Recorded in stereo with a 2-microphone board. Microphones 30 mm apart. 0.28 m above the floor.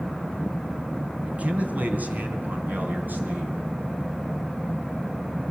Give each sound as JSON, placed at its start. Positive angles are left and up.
{"t": 1.2, "sound": "a man speaking", "side_deg": -45, "distance_m": 2.5}